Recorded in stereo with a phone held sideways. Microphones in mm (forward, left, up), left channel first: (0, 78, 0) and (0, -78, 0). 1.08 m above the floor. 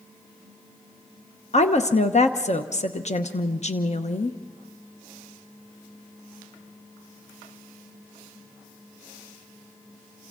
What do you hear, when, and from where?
1.5 s a woman speaking: 50° left (ahead or behind), 1.0 m